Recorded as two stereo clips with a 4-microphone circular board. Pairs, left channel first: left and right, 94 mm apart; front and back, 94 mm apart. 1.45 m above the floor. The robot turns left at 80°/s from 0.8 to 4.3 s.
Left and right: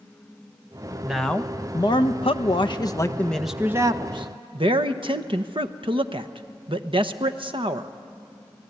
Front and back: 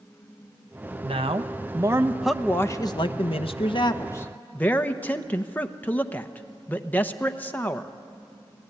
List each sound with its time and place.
1.0 s a man speaking: 170° right, 1.0 m; by 7.9 s 70° right, 1.0 m